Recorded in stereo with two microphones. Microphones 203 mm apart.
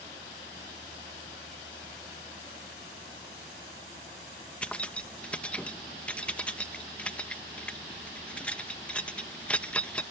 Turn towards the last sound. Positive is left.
turn(degrees=5)  # may be behind; listen again after turning